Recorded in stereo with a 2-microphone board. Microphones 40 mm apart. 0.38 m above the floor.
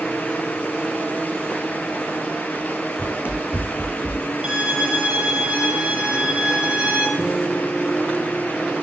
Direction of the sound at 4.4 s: 25° right (ahead or behind).